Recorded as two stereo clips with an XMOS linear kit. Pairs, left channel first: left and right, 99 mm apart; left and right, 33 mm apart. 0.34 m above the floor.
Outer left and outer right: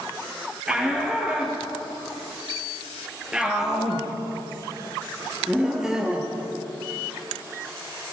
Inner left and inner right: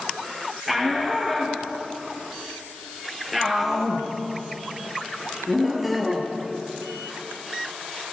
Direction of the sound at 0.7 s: 5° right (ahead or behind).